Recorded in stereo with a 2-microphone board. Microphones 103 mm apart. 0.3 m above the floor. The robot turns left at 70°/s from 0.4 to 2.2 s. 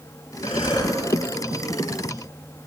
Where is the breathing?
70° left, 1.7 m; by 1.0 s 35° left, 1.7 m.